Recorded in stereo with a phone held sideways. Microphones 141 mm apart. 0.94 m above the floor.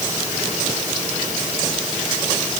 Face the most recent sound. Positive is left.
No sound to turn to.